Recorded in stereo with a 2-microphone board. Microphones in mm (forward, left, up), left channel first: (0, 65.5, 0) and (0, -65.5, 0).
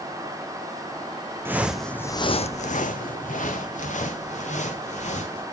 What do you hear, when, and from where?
1.4 s footsteps: 15° right (ahead or behind), 0.7 m; by 5.4 s 65° left (ahead or behind), 2.5 m